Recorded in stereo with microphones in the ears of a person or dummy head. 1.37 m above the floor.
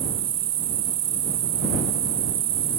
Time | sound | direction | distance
0.0 | an insect | 30° right (ahead or behind) | ?